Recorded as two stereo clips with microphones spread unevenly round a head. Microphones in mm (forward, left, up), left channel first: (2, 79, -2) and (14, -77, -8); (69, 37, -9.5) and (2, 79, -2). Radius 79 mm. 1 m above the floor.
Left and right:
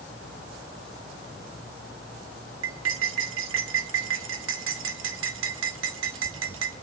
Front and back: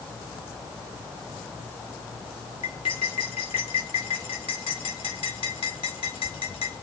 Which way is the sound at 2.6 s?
85° right.